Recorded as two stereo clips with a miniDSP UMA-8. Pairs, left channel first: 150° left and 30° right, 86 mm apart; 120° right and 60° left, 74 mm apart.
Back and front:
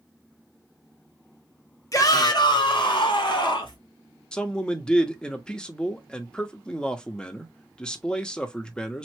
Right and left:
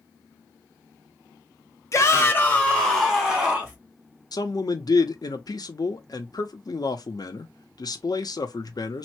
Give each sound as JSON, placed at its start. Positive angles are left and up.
{"t": 1.9, "sound": "a shout", "azimuth_deg": -165, "distance_m": 0.9}
{"t": 4.3, "sound": "a man speaking", "azimuth_deg": -130, "distance_m": 0.7}